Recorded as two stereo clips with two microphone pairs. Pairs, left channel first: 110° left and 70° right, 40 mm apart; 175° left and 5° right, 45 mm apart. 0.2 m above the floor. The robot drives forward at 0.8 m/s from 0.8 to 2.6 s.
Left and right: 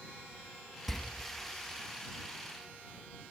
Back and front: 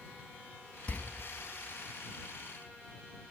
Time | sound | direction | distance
0.9 | a door slam | 160° right | 0.9 m